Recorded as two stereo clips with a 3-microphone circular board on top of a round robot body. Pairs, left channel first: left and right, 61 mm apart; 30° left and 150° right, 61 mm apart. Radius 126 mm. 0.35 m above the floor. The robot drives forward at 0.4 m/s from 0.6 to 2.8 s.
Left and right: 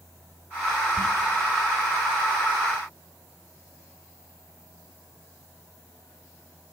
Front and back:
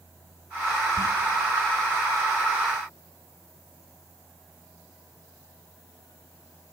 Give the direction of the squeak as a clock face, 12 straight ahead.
11 o'clock.